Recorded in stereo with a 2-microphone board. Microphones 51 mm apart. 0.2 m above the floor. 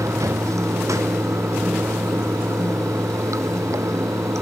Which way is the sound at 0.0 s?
85° right.